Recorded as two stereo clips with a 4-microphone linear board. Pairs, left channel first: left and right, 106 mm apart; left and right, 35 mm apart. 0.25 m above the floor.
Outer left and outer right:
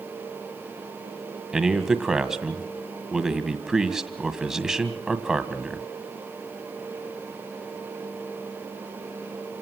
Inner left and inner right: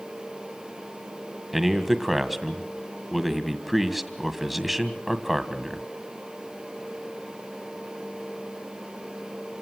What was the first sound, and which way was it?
A man speaking, 5° right (ahead or behind).